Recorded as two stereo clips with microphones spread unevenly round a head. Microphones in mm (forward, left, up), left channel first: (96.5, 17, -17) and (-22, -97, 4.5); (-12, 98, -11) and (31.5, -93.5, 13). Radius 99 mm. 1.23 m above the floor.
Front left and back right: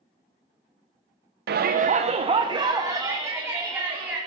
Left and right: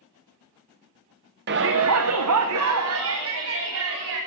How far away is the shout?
About 0.7 m.